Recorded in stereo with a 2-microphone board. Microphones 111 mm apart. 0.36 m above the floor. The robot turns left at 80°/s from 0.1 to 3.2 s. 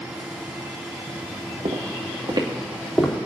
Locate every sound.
1.6 s footsteps: 85° right, 2.5 m; by 3.1 s 10° left (ahead or behind), 3 m